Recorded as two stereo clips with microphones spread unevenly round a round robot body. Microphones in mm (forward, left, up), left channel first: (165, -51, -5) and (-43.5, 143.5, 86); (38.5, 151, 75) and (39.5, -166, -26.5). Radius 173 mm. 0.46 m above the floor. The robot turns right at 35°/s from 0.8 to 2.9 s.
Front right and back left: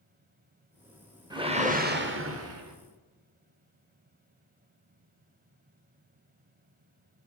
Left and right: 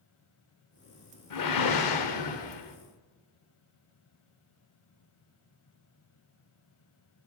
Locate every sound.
1.3 s a whoosh: 55° left, 1.4 m; by 2.8 s 105° left, 1.4 m